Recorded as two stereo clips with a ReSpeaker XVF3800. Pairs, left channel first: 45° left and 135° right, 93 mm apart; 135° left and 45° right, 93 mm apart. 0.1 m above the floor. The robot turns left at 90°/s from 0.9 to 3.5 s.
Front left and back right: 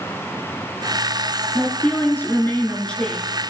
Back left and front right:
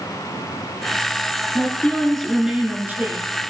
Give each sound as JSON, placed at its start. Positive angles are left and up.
{"t": 1.6, "sound": "a woman speaking", "azimuth_deg": 110, "distance_m": 1.2}